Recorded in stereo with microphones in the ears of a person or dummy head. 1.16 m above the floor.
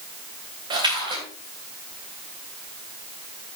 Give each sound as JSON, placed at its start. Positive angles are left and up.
{"t": 0.7, "sound": "a splash", "side_deg": -25, "distance_m": 3.0}